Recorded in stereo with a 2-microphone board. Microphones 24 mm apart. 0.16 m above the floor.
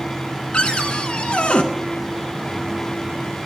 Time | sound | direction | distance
0.5 | a cupboard door | 50° left (ahead or behind) | 0.6 m